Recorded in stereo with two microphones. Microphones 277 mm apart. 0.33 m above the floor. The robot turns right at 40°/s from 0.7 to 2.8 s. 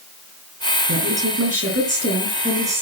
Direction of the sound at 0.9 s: 85° right.